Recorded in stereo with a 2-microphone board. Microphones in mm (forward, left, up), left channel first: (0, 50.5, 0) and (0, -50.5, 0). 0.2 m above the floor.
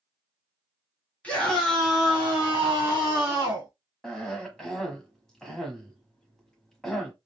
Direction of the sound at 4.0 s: 5° left (ahead or behind).